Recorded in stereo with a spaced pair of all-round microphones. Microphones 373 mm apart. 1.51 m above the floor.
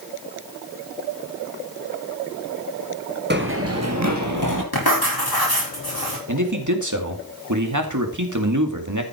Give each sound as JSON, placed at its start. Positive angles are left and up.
{"t": 3.3, "sound": "running footsteps", "side_deg": -30, "distance_m": 1.6}
{"t": 4.7, "sound": "writing", "side_deg": 85, "distance_m": 5.5}
{"t": 6.3, "sound": "a man speaking", "side_deg": -55, "distance_m": 2.5}